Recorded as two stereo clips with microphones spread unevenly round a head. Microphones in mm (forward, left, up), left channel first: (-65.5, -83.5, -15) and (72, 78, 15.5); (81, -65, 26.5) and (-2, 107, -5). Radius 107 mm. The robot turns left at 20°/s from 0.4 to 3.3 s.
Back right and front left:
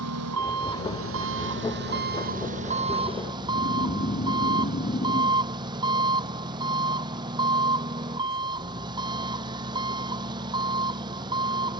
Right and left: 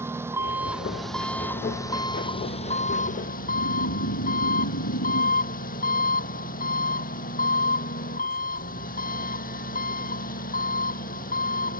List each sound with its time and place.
0.0 s an engine running: 35° left; by 11.8 s 20° right
3.3 s snoring: 75° right